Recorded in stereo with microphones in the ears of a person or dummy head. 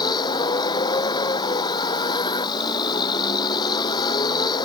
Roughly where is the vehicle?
Left.